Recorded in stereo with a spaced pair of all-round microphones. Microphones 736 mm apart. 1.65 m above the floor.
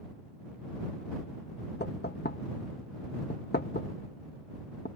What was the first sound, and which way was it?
Knocking, 15° left (ahead or behind).